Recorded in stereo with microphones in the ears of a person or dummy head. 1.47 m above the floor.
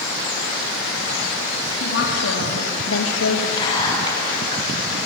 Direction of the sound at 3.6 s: 15° left (ahead or behind).